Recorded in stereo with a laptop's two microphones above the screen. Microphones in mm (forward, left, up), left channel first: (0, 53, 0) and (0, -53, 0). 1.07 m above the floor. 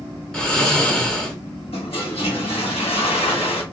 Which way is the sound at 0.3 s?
5° left (ahead or behind).